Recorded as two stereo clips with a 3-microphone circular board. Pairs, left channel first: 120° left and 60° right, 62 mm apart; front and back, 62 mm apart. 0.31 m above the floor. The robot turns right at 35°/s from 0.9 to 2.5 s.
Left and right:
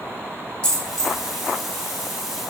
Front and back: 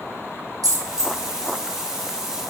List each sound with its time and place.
0.6 s a dropped coin: 170° right, 1.4 m; by 1.6 s 145° right, 1.4 m